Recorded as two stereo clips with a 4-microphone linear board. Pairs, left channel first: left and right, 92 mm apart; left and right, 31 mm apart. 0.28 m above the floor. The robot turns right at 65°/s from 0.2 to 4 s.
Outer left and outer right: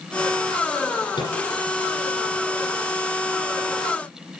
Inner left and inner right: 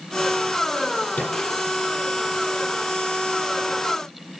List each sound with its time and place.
1.1 s a microwave: 60° left (ahead or behind), 9.5 m; by 1.4 s 45° left (ahead or behind), 9.5 m